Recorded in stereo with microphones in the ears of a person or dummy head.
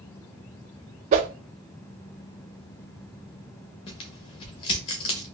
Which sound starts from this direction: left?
Tearing paper, at 3.9 s.